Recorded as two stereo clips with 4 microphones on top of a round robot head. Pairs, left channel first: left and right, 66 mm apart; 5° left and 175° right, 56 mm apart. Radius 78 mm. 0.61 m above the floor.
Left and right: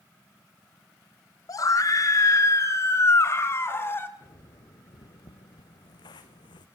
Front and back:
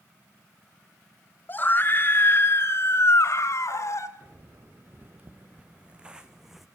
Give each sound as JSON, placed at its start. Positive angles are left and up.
{"t": 1.5, "sound": "a scream", "azimuth_deg": 60, "distance_m": 3.5}
{"t": 4.2, "sound": "footsteps", "azimuth_deg": 140, "distance_m": 4.5}